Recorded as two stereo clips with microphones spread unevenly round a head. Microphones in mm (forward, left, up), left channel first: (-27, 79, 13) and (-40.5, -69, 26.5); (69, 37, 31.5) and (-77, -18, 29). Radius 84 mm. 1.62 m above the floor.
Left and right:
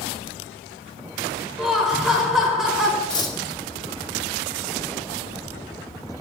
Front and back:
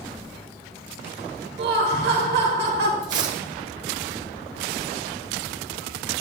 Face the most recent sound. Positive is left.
turn(degrees=145)